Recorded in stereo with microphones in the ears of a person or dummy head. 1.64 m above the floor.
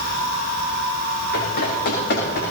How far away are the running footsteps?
About 9.5 m.